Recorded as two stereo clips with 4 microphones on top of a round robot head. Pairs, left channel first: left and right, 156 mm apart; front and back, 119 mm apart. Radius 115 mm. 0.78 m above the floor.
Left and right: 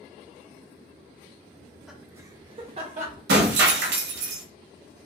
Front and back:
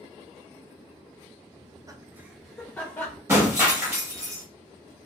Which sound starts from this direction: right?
Breaking glass, at 3.3 s.